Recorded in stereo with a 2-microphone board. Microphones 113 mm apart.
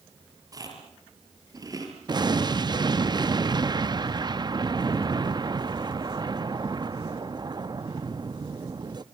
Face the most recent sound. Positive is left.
turn(degrees=-40)  # may be behind; listen again after turning